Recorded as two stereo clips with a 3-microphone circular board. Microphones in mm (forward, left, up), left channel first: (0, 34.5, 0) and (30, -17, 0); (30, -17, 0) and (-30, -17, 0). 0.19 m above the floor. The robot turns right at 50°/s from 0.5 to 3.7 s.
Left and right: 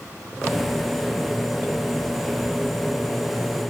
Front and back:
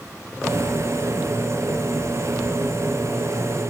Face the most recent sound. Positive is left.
No sound to turn to.